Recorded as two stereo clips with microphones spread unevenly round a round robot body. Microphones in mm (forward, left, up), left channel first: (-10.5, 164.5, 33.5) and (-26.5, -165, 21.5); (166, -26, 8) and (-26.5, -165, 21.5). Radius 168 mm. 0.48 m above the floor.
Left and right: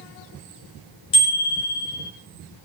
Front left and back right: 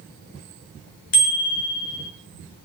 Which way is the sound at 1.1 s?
10° left.